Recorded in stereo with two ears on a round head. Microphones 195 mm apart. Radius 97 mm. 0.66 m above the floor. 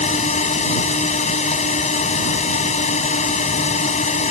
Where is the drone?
30° left (ahead or behind).